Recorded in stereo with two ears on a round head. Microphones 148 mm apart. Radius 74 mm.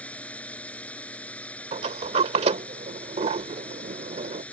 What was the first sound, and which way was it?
A drone, 10° left (ahead or behind).